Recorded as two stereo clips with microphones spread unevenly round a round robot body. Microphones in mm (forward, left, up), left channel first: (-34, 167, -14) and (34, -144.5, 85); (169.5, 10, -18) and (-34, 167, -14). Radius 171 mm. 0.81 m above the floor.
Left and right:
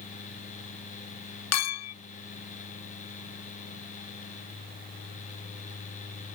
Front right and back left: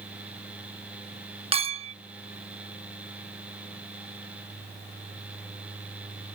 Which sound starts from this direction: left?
A clink, at 1.5 s.